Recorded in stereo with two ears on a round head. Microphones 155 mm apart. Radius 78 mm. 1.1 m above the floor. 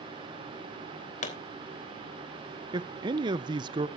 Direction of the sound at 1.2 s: 45° left (ahead or behind).